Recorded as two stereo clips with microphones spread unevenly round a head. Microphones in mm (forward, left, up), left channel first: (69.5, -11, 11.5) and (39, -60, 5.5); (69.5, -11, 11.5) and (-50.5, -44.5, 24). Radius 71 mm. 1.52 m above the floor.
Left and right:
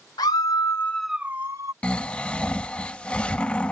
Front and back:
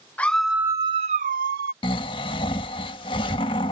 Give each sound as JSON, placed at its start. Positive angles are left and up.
{"t": 0.2, "sound": "a scream", "azimuth_deg": 95}
{"t": 1.8, "sound": "snoring", "azimuth_deg": 25}